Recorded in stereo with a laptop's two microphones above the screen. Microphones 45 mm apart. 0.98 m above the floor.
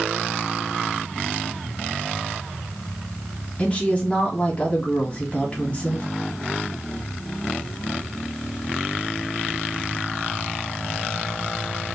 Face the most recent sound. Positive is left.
turn(degrees=30)  # may be behind; listen again after turning